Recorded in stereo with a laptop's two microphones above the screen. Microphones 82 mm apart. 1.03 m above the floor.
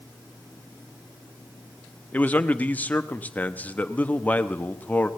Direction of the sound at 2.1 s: 20° left (ahead or behind).